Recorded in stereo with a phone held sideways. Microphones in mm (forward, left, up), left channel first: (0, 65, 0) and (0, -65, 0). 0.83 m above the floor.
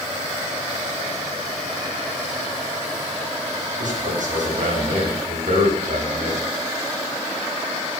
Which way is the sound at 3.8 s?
80° right.